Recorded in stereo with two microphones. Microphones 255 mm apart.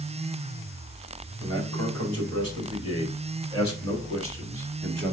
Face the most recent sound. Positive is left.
turn(degrees=-45)  # may be behind; listen again after turning